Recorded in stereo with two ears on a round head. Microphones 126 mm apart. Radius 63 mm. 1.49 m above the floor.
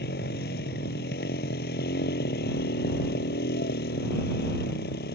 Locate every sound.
0.0 s a motorcycle: 80° left